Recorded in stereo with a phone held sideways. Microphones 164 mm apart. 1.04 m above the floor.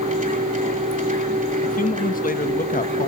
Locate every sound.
0.0 s a machine running: 50° right (ahead or behind), 2.5 m
1.6 s a man speaking: 55° left (ahead or behind), 1.2 m